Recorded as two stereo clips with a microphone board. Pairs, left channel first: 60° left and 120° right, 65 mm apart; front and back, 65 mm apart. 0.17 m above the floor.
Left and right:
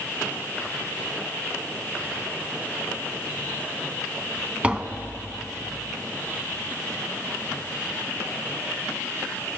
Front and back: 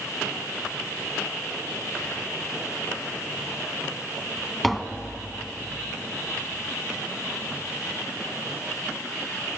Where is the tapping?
85° right, 0.6 m.